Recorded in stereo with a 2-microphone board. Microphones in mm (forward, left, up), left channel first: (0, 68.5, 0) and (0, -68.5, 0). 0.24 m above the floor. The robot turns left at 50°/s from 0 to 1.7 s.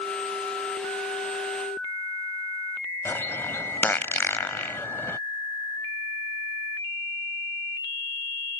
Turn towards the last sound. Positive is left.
turn(degrees=15)  # may be behind; listen again after turning